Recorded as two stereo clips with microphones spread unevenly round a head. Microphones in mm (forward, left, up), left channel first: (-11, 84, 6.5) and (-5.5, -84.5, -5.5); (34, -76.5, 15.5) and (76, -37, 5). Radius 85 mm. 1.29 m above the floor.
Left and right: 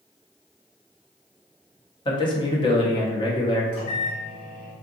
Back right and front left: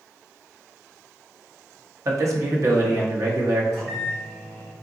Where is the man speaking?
25° left, 1.1 m.